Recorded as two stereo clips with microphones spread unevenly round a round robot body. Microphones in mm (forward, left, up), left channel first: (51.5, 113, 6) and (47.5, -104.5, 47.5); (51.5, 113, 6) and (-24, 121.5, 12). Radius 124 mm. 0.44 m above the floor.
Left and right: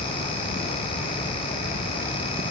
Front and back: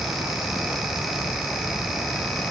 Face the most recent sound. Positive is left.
No sound to turn to.